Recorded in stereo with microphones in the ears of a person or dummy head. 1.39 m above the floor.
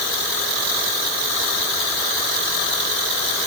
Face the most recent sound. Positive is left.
No sound to turn to.